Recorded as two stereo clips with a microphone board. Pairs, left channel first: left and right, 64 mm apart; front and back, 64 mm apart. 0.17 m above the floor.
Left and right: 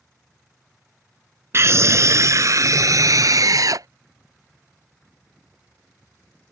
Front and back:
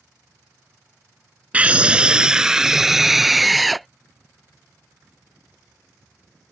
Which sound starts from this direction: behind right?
A scream, at 1.5 s.